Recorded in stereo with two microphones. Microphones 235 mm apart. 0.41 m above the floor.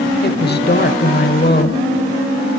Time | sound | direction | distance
0.2 | a woman speaking | 45° left (ahead or behind) | 1.3 m